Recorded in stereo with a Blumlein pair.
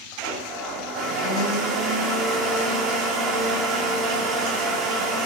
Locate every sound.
0.2 s a blender: 25° right, 3.5 m